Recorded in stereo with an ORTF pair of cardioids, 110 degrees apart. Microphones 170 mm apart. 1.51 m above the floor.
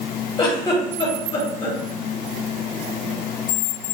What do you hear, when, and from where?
0.4 s a giggle: 25° left, 1.3 m